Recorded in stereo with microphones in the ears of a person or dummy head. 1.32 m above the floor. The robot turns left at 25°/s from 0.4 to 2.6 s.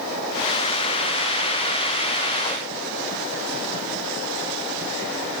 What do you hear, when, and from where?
Only background noise.